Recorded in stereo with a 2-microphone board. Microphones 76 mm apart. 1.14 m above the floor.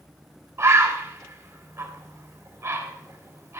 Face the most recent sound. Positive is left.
turn(degrees=-40)  # may be behind; listen again after turning